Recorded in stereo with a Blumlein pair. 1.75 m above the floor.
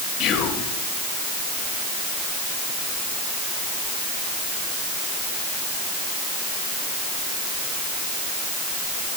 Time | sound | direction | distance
0.2 | whispering | 35° left | 2.5 m